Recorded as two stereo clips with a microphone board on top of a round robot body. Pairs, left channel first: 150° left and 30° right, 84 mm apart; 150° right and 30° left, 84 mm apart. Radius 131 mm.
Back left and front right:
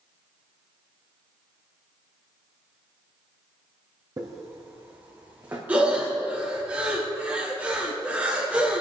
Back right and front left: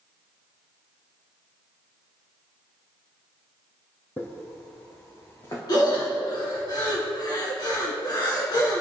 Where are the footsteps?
80° right, 1.9 m; by 5.6 s 95° right, 4 m.